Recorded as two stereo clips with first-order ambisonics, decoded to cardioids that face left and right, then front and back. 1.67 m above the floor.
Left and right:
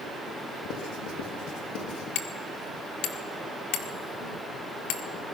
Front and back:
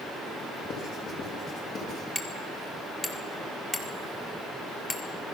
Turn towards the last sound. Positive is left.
turn(degrees=85)